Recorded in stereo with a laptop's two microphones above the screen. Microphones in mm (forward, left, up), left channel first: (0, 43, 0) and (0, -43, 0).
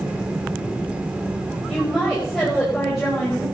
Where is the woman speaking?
Centre (ahead or behind), 5.5 m.